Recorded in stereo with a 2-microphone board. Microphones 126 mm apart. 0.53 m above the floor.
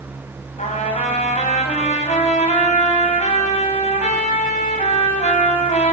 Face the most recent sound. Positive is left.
turn(degrees=70)  # may be behind; listen again after turning